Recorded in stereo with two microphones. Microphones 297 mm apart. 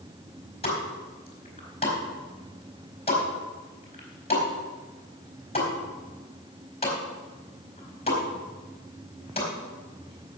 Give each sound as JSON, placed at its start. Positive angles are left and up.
{"t": 0.6, "sound": "a pop", "side_deg": 20, "distance_m": 4.0}